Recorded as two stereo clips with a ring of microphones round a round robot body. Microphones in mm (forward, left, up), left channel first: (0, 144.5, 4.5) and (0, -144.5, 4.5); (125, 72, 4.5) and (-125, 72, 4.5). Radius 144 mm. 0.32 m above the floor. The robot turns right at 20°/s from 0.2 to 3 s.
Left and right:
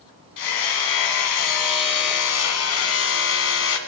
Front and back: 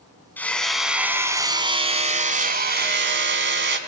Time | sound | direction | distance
0.4 | hammering | 85° left | 1.9 m